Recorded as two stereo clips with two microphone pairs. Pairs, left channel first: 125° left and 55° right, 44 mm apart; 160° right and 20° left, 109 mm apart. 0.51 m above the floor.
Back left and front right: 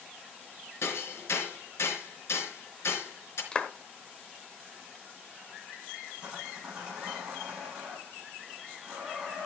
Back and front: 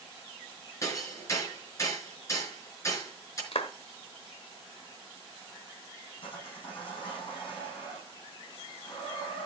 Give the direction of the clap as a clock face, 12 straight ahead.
6 o'clock.